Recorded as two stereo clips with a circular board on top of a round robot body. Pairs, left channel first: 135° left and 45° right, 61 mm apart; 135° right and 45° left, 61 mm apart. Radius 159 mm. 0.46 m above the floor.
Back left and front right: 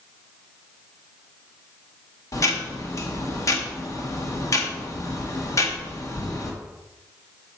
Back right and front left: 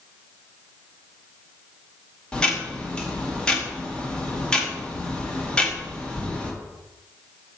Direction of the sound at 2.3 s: 155° left.